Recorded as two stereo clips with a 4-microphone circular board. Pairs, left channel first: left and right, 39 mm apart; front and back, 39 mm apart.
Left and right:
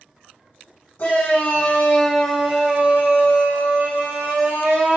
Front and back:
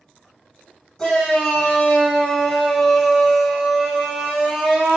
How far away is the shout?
About 0.8 m.